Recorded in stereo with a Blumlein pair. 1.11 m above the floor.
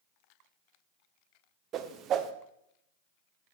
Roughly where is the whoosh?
Ahead right.